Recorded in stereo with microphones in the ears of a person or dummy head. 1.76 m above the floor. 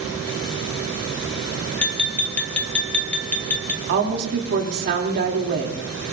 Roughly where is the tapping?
Centre.